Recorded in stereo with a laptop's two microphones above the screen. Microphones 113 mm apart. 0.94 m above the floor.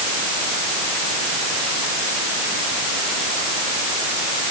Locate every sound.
Only background noise.